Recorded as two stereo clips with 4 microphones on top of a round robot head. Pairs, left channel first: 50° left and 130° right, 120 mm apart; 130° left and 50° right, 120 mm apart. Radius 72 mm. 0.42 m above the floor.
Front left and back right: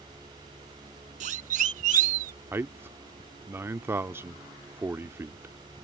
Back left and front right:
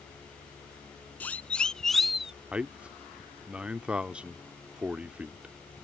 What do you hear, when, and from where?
1.2 s a siren: 155° right; by 2.3 s 135° right
2.5 s a man speaking: 110° right